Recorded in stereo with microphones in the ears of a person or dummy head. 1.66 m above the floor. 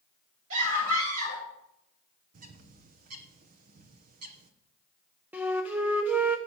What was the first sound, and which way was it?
A scream, 75° right (ahead or behind).